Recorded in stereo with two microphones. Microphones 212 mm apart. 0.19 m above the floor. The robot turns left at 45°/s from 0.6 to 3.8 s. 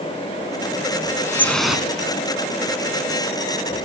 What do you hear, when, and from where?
1.2 s dripping: 15° left (ahead or behind), 1.5 m; by 1.9 s 5° right (ahead or behind), 1.5 m